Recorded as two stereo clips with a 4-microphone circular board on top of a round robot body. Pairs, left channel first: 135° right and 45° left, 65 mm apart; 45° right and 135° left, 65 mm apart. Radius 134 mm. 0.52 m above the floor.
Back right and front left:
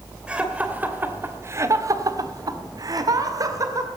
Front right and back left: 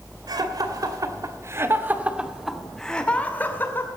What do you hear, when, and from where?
0.3 s laughter: 120° left, 2.5 m; by 3.9 s 10° left, 2.5 m